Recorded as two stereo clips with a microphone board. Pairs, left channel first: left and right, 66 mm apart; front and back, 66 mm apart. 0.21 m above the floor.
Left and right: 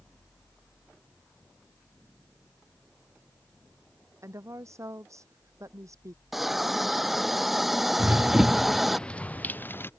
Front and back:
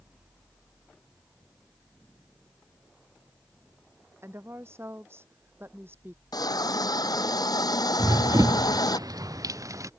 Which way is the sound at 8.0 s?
155° right.